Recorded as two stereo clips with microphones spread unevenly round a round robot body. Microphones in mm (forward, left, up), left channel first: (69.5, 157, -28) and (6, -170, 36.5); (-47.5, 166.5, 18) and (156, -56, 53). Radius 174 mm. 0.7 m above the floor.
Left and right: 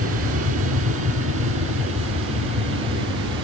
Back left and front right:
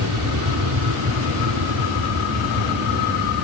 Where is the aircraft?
50° right.